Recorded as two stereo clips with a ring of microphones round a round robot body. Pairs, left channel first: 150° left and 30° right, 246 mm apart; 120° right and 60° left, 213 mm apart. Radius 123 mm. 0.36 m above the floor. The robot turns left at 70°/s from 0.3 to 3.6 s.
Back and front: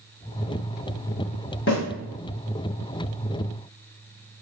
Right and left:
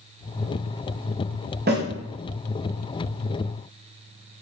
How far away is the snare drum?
About 1.8 m.